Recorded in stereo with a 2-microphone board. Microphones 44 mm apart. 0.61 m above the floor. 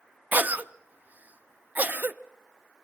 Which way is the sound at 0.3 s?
40° right (ahead or behind).